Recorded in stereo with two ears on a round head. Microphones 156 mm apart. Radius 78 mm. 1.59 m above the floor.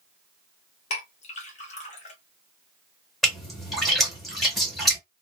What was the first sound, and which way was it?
A clink, 40° left (ahead or behind).